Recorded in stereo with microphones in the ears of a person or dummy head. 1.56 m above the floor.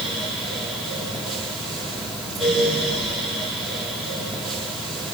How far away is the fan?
About 2 m.